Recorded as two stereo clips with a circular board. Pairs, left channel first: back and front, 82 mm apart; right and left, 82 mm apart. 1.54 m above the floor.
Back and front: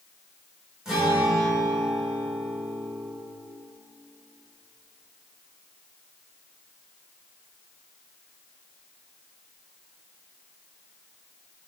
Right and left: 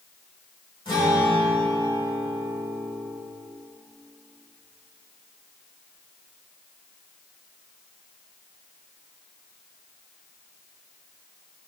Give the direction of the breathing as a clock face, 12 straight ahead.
I don't hear breathing.